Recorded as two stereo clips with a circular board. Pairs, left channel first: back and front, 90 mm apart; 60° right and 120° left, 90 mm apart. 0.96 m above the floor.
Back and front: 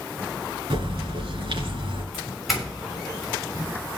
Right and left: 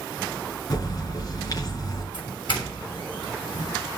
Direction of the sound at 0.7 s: 15° right.